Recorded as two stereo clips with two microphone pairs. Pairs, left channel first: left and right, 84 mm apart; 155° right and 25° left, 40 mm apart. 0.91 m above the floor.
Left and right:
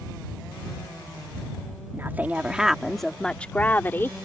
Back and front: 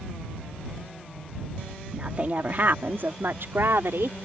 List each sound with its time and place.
1.9 s a woman speaking: 30° right; by 4.2 s 30° left